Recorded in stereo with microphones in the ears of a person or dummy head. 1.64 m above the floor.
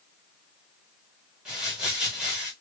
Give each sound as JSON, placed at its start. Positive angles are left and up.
{"t": 1.4, "sound": "crumpling", "side_deg": -5, "distance_m": 1.1}